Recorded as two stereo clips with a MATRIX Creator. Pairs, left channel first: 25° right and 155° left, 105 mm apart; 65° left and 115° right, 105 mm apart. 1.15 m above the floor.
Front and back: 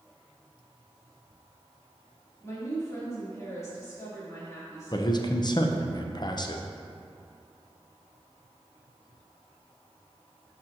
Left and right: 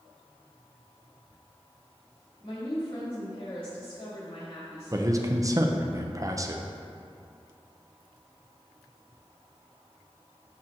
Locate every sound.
2.4 s a woman speaking: 40° left, 2.5 m
4.9 s a man speaking: 60° right, 0.5 m